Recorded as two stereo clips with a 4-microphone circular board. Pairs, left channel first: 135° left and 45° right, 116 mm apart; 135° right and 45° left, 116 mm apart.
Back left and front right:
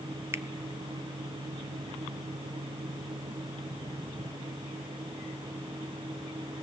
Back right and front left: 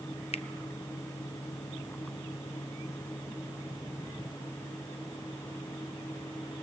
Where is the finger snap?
110° right, 0.5 m.